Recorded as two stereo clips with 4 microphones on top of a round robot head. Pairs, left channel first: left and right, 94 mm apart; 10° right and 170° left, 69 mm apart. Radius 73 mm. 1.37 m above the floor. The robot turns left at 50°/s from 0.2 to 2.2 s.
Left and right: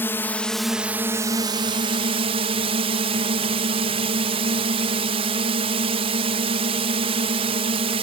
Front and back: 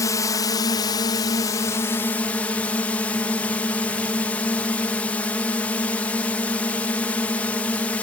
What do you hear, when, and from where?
0.0 s a drone: 20° left; by 8.0 s 80° right